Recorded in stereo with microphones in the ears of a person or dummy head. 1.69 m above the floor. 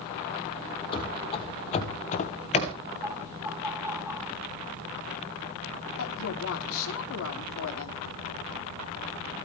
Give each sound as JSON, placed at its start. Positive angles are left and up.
{"t": 0.9, "sound": "running footsteps", "side_deg": 30, "distance_m": 4.0}
{"t": 3.0, "sound": "laughter", "side_deg": -15, "distance_m": 2.5}
{"t": 6.0, "sound": "a woman speaking", "side_deg": 80, "distance_m": 3.5}